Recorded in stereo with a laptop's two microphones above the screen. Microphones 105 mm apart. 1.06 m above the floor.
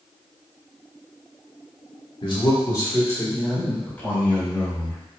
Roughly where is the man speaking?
Left.